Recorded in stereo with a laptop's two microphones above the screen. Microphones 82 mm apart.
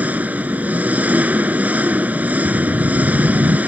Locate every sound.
0.0 s an engine running: 20° right (ahead or behind)
2.5 s a whoosh: 90° right